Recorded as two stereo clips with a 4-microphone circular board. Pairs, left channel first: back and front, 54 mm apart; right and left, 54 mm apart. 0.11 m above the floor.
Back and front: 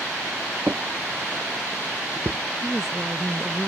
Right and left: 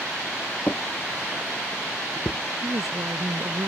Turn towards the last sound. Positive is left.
turn(degrees=80)